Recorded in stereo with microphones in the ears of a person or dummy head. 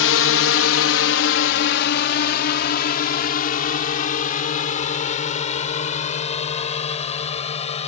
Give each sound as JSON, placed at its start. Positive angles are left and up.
{"t": 0.0, "sound": "a drone", "side_deg": 65}